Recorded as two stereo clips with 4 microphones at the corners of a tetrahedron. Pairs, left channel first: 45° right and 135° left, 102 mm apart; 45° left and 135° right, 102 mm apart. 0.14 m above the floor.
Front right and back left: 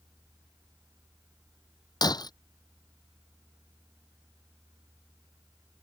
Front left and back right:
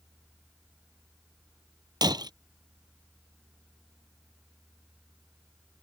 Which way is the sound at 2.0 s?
90° right.